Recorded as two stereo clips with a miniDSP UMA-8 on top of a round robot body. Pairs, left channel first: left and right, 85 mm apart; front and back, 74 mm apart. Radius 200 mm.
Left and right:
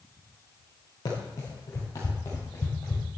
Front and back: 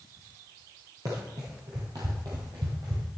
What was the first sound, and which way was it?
Running footsteps, 135° left.